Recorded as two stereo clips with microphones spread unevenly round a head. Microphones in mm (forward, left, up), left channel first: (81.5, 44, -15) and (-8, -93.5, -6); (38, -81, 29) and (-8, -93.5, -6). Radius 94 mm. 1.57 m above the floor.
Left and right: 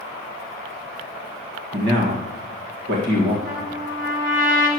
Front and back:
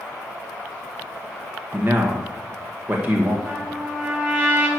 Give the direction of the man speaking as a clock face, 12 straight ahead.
4 o'clock.